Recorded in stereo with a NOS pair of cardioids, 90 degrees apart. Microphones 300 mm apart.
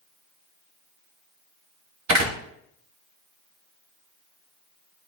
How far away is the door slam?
About 1.4 m.